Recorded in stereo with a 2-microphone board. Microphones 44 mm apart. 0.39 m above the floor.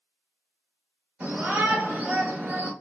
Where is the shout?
30° right (ahead or behind), 1.1 m.